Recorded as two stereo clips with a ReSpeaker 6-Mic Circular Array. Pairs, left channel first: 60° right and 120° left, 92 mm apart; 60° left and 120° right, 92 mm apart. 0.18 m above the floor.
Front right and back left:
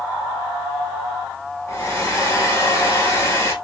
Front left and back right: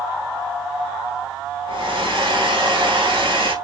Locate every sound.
1.7 s a hair dryer: 120° right, 1.5 m